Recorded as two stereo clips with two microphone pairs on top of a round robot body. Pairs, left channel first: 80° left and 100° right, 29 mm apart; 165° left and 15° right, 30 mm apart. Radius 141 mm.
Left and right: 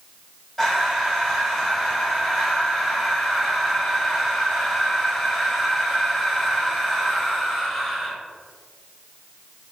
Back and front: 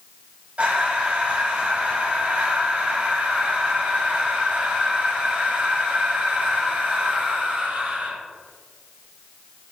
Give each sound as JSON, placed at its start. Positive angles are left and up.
{"t": 0.6, "sound": "breathing", "azimuth_deg": 0, "distance_m": 1.9}